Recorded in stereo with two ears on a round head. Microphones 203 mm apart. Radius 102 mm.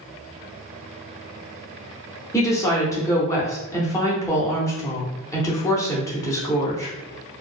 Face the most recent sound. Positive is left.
turn(degrees=15)  # may be behind; listen again after turning